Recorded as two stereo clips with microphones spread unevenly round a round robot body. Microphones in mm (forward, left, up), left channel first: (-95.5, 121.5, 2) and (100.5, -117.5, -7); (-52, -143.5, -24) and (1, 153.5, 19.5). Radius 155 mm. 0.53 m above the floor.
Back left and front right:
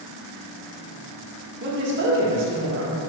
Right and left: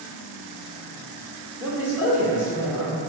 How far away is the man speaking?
About 1.0 m.